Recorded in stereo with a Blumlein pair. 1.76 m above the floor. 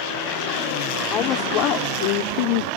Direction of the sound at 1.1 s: 30° left.